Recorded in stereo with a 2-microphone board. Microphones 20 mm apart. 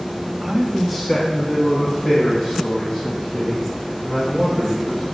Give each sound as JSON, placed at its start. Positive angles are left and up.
{"t": 0.4, "sound": "a man speaking", "side_deg": -15, "distance_m": 0.9}